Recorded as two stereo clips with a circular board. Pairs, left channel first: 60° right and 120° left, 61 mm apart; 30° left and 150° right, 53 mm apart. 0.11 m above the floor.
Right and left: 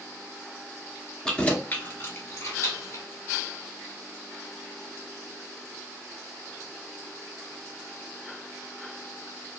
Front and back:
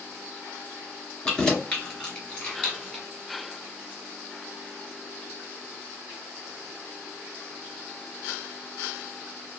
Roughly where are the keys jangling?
Ahead.